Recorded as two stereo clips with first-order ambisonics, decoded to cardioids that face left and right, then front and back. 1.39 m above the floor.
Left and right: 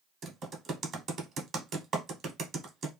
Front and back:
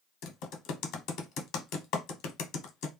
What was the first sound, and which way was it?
Typing on a keyboard, 30° right.